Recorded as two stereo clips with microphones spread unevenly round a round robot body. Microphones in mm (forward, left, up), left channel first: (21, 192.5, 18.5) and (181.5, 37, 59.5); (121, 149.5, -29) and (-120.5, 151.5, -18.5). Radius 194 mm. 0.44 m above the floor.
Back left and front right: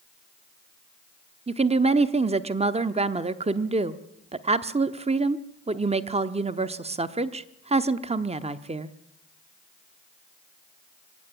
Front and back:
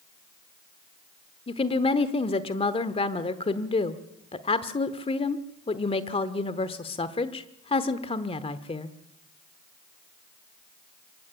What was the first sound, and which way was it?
A woman speaking, 5° left.